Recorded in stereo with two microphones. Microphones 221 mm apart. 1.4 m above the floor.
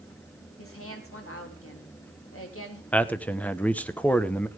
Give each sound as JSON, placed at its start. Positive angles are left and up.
{"t": 0.6, "sound": "a woman speaking", "side_deg": 80, "distance_m": 3.5}
{"t": 2.9, "sound": "a man speaking", "side_deg": 5, "distance_m": 0.9}